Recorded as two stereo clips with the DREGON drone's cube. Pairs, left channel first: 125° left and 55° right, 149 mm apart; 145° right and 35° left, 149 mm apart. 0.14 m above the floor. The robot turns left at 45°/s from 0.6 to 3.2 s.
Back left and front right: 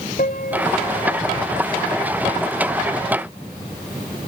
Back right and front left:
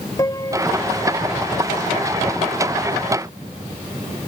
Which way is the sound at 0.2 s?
150° left.